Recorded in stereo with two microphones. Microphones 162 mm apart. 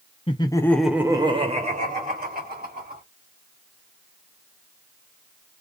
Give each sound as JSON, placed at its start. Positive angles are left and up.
{"t": 0.3, "sound": "laughter", "side_deg": 35, "distance_m": 0.8}